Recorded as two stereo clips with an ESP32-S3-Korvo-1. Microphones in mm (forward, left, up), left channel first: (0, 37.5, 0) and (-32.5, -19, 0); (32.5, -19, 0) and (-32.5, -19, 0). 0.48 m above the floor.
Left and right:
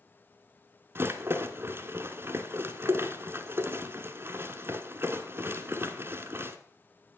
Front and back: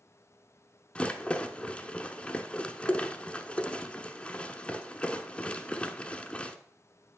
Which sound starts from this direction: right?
A rattle, at 0.9 s.